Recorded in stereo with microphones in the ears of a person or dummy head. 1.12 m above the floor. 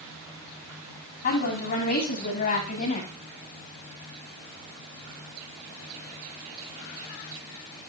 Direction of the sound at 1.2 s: 45° left (ahead or behind).